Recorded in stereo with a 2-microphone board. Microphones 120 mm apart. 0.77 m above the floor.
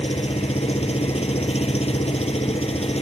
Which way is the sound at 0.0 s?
60° left (ahead or behind).